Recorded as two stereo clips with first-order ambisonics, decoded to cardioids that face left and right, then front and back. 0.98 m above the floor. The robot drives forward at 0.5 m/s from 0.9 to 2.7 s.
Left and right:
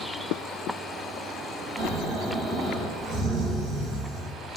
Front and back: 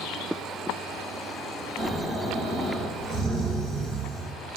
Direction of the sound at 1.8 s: 125° right.